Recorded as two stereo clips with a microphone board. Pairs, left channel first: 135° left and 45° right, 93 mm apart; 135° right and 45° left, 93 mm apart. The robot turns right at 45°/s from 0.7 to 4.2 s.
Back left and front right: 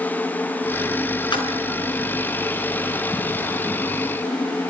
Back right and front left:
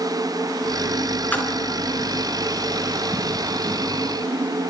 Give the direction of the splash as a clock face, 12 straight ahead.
7 o'clock.